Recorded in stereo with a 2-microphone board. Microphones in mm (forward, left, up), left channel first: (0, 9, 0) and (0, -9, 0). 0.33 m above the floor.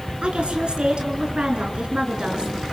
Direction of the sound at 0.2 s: 65° right (ahead or behind).